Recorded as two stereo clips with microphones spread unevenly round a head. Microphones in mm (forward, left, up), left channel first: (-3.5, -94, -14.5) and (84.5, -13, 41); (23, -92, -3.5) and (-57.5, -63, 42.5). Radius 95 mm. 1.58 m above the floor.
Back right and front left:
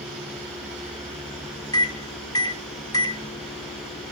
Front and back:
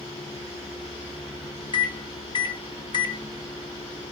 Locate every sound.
1.7 s a microwave: 70° right, 0.8 m